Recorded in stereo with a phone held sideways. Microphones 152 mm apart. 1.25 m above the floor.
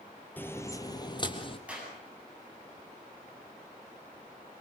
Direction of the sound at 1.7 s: 10° right (ahead or behind).